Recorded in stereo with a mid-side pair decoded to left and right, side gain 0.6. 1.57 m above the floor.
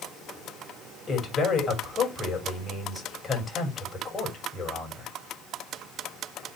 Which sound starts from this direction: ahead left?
A man speaking, at 1.1 s.